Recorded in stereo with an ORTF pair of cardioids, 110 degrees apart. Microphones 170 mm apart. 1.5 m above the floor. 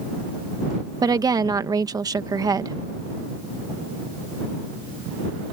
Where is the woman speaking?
20° right.